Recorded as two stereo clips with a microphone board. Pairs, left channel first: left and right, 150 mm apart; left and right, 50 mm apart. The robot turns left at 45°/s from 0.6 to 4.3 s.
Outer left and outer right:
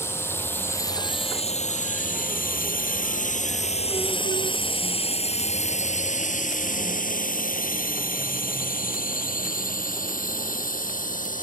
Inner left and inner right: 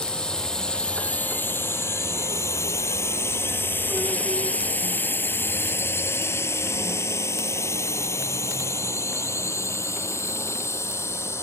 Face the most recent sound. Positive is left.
turn(degrees=65)  # may be behind; listen again after turning